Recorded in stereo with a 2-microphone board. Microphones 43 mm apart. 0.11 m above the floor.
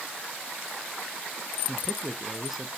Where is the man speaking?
5° right (ahead or behind), 1.5 m.